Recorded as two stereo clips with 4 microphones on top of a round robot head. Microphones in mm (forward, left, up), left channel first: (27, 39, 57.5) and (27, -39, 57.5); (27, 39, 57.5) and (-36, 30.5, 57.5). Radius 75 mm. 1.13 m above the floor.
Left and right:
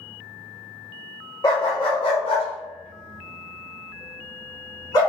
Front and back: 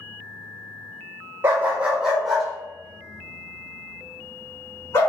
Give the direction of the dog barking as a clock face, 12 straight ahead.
7 o'clock.